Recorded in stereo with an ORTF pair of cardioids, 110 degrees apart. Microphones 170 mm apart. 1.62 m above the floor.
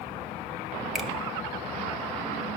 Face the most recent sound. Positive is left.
turn(degrees=0)